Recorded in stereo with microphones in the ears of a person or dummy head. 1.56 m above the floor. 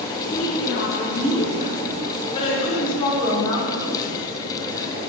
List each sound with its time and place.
0.3 s a woman speaking: 60° left (ahead or behind), 6 m; by 3.9 s 20° left (ahead or behind), 5.5 m